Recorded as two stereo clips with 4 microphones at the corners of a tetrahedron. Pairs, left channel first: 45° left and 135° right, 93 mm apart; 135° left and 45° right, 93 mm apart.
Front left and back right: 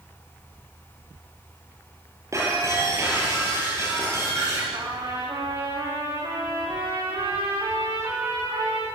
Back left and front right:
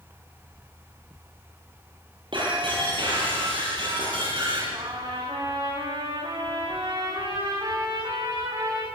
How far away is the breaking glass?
About 9 m.